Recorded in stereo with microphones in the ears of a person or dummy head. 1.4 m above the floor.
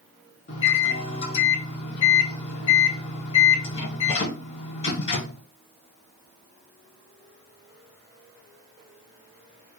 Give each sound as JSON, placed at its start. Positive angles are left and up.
{"t": 0.5, "sound": "a microwave", "side_deg": 35, "distance_m": 0.6}